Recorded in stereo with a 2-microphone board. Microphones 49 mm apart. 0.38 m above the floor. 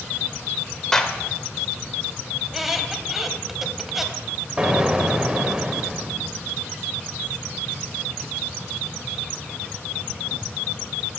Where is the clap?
10° left (ahead or behind), 1.1 m.